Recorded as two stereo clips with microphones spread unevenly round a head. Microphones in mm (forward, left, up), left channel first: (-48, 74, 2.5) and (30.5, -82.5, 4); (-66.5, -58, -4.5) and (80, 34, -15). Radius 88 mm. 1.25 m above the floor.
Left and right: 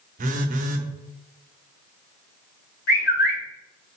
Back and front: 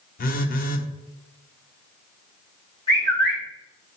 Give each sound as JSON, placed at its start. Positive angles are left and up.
{"t": 0.2, "sound": "a phone buzzing", "azimuth_deg": -110, "distance_m": 0.9}
{"t": 2.9, "sound": "a bird", "azimuth_deg": 150, "distance_m": 2.5}